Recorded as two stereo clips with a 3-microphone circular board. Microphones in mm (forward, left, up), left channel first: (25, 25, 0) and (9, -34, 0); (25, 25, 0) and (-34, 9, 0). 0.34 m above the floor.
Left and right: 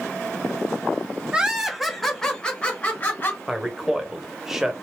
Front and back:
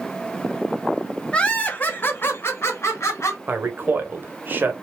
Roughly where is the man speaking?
Behind.